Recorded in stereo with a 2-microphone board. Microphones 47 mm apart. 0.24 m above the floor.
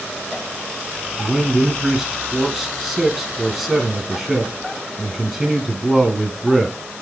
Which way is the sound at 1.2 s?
5° right (ahead or behind).